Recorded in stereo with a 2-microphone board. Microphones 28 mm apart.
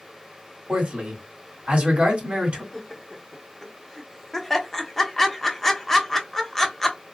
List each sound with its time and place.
0.7 s a man speaking: 45° right (ahead or behind), 1.6 m
2.7 s laughter: 15° left (ahead or behind), 0.9 m